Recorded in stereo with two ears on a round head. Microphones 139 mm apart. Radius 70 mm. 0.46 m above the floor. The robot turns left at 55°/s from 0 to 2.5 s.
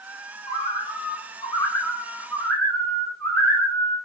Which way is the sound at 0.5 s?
20° left (ahead or behind).